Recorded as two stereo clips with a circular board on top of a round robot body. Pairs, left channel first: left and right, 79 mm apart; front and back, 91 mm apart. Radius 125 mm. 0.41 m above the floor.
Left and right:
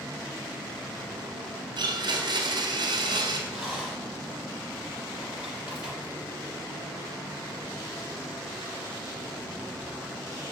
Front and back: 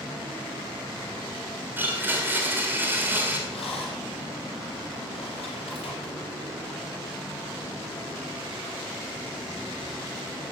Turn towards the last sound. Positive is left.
turn(degrees=-10)